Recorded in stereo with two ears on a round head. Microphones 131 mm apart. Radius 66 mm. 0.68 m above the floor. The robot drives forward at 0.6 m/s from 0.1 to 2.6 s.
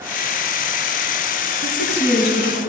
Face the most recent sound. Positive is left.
turn(degrees=80)